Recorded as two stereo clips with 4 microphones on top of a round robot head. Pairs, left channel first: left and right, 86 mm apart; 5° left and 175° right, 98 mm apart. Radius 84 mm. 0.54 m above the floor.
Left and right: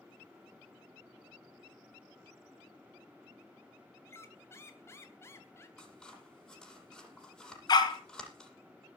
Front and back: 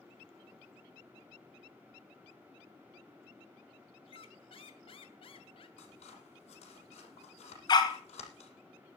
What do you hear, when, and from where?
4.1 s a squeak: 30° left, 2 m
5.8 s scissors: 10° left, 6.5 m
7.7 s a dog barking: 50° left, 3 m